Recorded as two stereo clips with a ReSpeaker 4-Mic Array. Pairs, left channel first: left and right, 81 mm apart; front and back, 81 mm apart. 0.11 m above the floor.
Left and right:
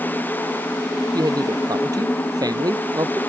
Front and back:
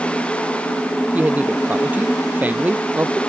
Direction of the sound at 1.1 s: 115° right.